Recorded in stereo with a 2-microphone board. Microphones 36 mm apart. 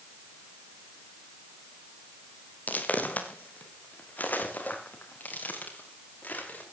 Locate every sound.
2.7 s footsteps: 45° left (ahead or behind), 2.5 m; by 6.6 s 50° left (ahead or behind), 5.5 m